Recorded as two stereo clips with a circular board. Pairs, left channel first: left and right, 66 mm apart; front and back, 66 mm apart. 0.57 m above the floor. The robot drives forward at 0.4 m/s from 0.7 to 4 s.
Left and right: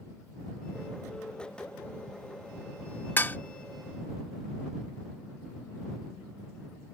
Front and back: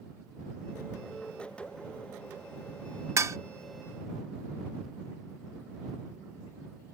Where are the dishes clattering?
145° left; by 3.4 s 150° left.